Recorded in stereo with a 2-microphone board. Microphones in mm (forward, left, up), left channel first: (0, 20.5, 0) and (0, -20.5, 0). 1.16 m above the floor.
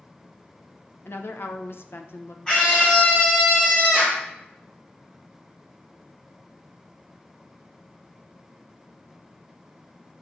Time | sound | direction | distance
1.1 | a woman speaking | 65° left (ahead or behind) | 1.0 m
2.5 | a scream | 20° left (ahead or behind) | 1.2 m